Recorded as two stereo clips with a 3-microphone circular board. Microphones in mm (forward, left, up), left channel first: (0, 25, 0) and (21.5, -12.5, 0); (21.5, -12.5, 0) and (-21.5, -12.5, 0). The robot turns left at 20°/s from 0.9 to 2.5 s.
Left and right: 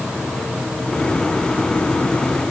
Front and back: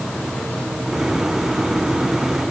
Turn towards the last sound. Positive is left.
No sound to turn to.